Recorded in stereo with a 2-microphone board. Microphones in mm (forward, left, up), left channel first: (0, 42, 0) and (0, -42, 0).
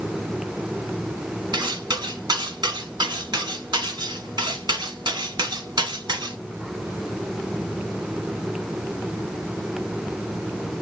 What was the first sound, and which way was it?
Cutlery clinking, 55° right (ahead or behind).